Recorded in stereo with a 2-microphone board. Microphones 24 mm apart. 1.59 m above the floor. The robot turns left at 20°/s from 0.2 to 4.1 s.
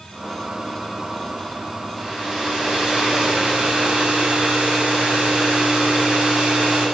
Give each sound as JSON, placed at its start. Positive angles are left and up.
{"t": 2.0, "sound": "a hair dryer", "azimuth_deg": -10, "distance_m": 5.5}